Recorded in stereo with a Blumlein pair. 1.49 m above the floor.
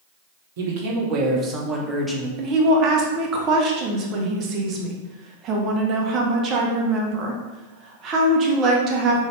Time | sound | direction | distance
0.6 | a man speaking | 55° right | 0.9 m
2.4 | a woman speaking | 35° right | 0.8 m